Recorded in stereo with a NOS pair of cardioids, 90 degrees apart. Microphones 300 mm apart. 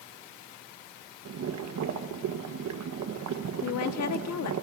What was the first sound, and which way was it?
Boiling, 60° right.